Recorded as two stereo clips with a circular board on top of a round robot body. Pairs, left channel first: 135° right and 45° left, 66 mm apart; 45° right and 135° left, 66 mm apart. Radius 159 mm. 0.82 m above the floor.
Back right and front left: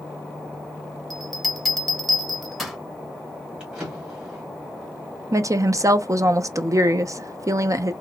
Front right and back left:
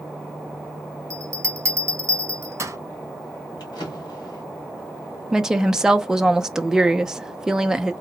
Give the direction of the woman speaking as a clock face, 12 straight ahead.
10 o'clock.